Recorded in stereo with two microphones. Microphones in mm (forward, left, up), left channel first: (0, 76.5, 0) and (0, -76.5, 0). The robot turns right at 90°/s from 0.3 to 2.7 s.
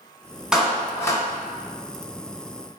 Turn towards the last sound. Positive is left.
turn(degrees=-170)